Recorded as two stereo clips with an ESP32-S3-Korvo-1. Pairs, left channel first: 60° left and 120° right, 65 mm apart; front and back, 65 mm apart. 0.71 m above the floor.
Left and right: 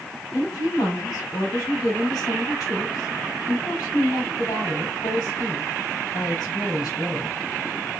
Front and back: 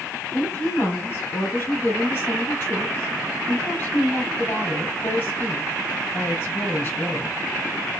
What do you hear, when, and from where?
0.3 s a woman speaking: 50° left, 3 m